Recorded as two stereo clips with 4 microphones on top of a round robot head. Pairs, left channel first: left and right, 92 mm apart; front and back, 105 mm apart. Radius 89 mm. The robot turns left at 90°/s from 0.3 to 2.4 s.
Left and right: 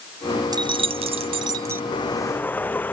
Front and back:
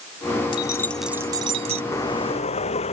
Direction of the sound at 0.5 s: 45° right.